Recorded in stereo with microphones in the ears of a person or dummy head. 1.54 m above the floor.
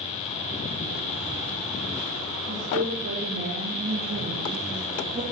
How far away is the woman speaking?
About 4 m.